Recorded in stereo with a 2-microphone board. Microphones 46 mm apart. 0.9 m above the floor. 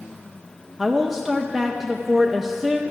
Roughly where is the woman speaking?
Centre.